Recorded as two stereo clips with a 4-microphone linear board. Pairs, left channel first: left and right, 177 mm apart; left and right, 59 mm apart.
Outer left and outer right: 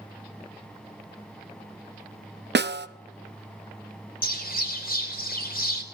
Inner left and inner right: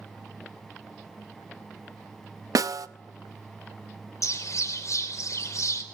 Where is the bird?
55° left (ahead or behind), 3.5 m.